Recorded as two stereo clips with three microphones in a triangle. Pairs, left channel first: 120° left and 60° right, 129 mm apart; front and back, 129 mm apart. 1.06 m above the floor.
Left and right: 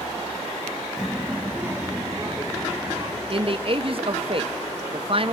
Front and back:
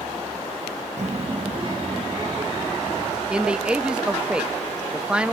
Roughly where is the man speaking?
Right.